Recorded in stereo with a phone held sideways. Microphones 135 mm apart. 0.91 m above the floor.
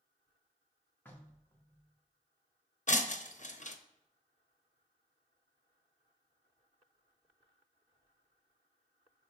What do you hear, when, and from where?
1.1 s knocking: 15° left (ahead or behind), 1.5 m
2.9 s breaking glass: 65° left (ahead or behind), 0.8 m